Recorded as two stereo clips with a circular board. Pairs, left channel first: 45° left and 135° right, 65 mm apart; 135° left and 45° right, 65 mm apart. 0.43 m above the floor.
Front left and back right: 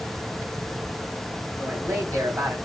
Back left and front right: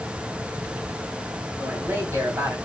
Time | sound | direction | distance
1.6 | a man speaking | 95° right | 3 m